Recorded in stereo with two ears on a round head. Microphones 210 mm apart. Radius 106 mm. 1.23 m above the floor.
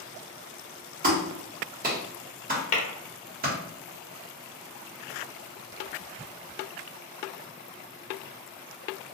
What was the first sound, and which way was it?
A clap, 40° right (ahead or behind).